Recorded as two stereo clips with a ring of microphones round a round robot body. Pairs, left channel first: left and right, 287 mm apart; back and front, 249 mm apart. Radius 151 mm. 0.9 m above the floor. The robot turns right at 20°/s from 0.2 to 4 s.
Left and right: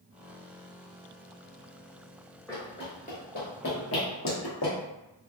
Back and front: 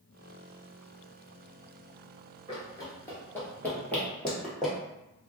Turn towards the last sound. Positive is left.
turn(degrees=90)